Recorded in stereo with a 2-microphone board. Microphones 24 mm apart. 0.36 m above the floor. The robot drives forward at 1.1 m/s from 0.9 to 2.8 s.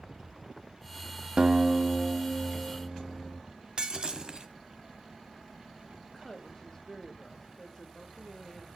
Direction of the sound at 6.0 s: 25° left (ahead or behind).